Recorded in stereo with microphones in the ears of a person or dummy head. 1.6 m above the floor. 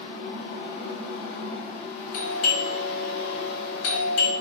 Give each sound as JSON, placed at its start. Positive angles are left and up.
{"t": 0.0, "sound": "a fan", "side_deg": 40, "distance_m": 1.6}
{"t": 2.1, "sound": "a doorbell", "side_deg": 75, "distance_m": 1.5}